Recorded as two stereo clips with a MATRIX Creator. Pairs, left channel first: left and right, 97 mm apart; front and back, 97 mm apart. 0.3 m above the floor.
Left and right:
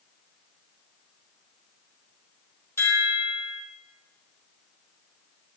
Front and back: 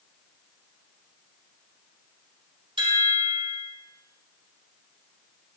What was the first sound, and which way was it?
A chime, 150° left.